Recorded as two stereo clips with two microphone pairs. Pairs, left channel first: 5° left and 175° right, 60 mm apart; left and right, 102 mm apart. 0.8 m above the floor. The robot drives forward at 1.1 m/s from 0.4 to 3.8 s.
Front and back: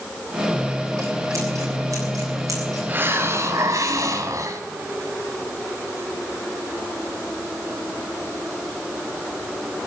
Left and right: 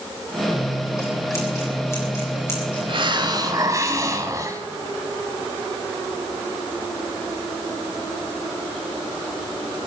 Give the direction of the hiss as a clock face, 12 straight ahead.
4 o'clock.